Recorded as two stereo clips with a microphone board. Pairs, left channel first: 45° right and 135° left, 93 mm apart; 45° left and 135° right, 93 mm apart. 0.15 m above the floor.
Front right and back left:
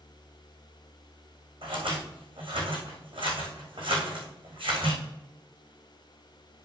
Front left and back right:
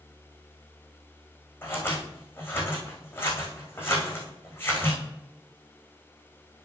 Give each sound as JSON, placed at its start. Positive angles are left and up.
{"t": 1.6, "sound": "scissors", "azimuth_deg": 110, "distance_m": 3.5}